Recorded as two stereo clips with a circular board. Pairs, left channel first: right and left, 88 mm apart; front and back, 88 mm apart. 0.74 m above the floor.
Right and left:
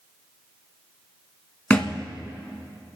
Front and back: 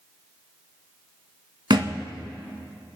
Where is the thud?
165° right, 1.4 m.